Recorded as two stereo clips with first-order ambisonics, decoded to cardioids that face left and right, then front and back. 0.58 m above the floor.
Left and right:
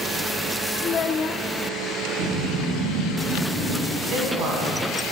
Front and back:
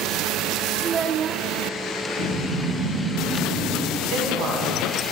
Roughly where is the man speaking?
Behind right.